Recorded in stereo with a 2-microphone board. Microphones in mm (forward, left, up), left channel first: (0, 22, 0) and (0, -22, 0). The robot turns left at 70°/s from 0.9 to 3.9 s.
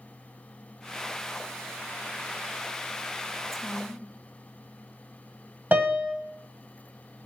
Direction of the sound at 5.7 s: 40° right (ahead or behind).